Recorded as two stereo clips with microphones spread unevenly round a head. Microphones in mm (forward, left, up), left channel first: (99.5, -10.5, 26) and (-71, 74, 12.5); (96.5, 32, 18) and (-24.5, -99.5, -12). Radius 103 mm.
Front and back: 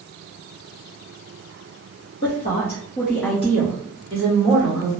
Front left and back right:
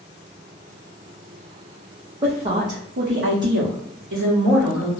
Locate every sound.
2.2 s a woman speaking: 70° right, 0.8 m; by 4.9 s 160° right, 1.2 m